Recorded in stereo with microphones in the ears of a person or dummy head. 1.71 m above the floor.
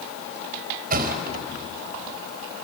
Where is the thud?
40° right (ahead or behind), 4 m.